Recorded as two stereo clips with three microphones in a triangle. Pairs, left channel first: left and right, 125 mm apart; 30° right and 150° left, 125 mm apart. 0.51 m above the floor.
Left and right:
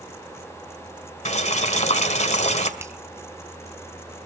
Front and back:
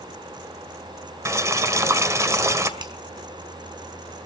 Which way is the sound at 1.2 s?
85° left.